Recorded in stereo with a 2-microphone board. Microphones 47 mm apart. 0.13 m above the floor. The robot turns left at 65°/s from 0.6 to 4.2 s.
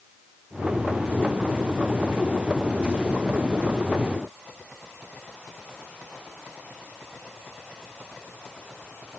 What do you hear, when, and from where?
Only background noise.